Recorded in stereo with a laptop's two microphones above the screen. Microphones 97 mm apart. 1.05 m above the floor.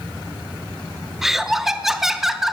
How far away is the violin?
I don't hear a violin.